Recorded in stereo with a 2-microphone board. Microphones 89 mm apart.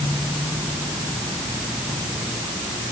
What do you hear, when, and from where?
Only background noise.